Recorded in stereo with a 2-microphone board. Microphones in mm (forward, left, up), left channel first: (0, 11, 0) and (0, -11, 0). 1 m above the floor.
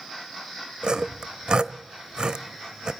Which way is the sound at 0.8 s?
40° right (ahead or behind).